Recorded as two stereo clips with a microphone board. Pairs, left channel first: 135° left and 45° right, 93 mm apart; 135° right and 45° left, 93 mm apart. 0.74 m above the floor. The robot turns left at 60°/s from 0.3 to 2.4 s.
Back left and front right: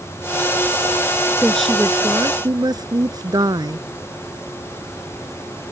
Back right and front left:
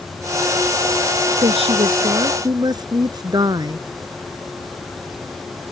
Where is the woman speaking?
60° left; by 3.9 s straight ahead.